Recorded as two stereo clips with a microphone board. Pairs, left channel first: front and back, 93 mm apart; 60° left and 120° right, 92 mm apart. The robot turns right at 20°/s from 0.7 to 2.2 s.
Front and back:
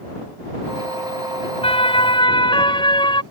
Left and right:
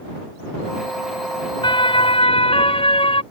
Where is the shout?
I don't hear a shout.